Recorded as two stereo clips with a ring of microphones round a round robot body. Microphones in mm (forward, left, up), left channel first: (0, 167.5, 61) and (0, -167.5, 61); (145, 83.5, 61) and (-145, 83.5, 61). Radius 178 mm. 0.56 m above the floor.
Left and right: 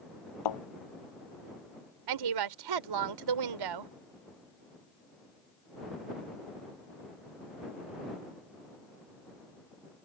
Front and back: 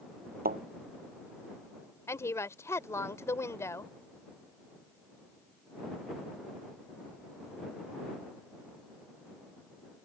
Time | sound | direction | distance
0.5 | a thud | 120° left | ?
2.1 | a woman speaking | 80° right | ?